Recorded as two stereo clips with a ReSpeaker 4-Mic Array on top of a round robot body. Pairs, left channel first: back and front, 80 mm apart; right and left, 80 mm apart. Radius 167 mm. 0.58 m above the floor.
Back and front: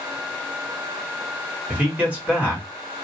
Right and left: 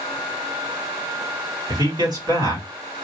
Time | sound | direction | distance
1.7 | a man speaking | 70° left | 2 m